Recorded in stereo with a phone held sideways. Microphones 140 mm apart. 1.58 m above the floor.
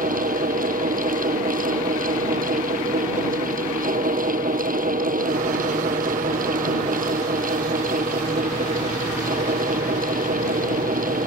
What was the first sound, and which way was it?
A fan, 80° right.